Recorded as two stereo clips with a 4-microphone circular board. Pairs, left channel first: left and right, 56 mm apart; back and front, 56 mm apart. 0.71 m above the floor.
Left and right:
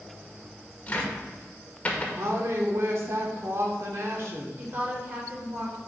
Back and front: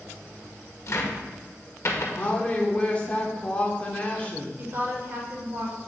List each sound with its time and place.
0.9 s a cupboard door: 155° left, 1.6 m
2.2 s a woman speaking: 115° right, 1.9 m
4.6 s a woman speaking: 45° right, 3 m